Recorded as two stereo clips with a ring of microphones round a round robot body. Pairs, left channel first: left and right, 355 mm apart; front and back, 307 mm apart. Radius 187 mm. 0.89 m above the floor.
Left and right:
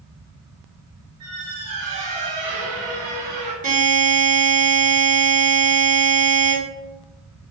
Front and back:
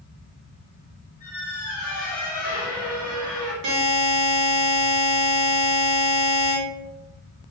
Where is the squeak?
75° right, 0.8 m.